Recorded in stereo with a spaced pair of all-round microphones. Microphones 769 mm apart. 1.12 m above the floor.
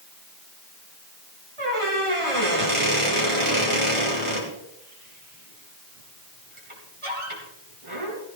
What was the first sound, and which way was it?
A squeak, 40° right (ahead or behind).